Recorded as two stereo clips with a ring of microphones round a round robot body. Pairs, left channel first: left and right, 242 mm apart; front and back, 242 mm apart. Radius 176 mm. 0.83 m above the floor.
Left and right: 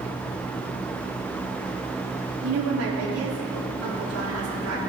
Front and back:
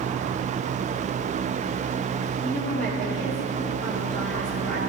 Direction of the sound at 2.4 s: 85° right.